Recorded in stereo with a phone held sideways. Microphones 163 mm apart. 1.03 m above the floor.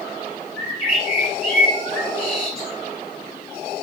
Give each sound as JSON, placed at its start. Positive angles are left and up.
{"t": 0.6, "sound": "a bird", "side_deg": 35, "distance_m": 1.8}